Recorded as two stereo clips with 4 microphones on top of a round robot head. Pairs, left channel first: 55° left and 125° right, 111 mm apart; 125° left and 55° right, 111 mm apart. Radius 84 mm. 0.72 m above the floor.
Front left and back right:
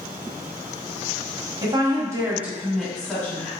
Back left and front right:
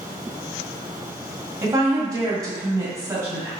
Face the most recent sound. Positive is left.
turn(degrees=5)